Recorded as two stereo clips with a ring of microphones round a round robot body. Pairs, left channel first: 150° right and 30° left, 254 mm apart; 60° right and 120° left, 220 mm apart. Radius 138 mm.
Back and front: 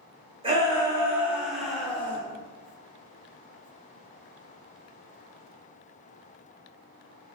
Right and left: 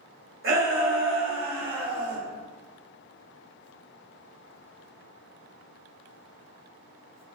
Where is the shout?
100° left, 2.5 m; by 2.2 s 130° left, 3 m.